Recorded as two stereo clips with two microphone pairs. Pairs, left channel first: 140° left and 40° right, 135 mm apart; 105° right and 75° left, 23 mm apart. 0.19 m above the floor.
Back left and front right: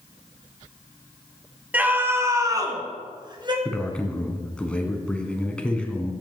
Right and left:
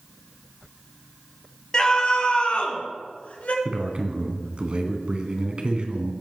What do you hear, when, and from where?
1.7 s a scream: 110° right, 1.5 m; by 3.5 s 95° right, 2.5 m
3.6 s a man speaking: 60° left, 1.7 m